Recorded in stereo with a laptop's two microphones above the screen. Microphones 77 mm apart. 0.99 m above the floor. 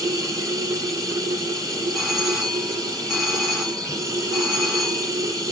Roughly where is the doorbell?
Centre.